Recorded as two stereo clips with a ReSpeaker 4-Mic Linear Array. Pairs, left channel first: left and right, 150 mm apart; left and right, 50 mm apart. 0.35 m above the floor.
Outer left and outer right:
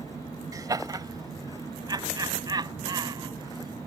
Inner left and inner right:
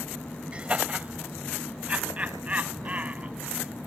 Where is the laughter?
25° right (ahead or behind); by 3.9 s 30° right (ahead or behind).